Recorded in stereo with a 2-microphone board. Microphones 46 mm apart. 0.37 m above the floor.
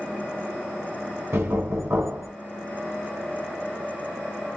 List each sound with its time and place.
1.3 s knocking: 70° right (ahead or behind), 2.5 m